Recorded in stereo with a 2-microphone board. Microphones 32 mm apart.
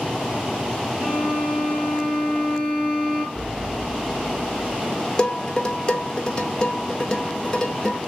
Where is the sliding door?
20° right (ahead or behind), 1.5 m.